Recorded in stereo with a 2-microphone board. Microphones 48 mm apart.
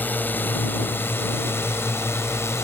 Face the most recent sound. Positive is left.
turn(degrees=60)  # may be behind; listen again after turning